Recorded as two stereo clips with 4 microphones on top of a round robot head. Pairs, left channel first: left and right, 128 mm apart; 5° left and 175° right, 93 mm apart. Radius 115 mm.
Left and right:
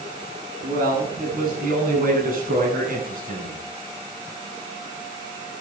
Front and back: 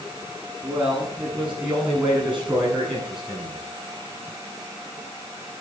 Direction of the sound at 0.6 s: 95° right.